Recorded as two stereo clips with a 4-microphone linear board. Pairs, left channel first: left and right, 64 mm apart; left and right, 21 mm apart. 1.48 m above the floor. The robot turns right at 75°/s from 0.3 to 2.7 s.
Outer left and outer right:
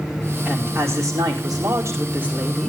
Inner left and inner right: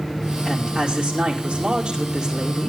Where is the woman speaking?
160° right, 5 m; by 2.7 s 5° left, 5 m.